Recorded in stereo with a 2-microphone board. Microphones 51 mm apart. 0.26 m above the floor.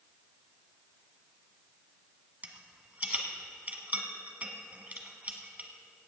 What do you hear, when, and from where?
2.4 s a rattle: 30° right (ahead or behind), 1.5 m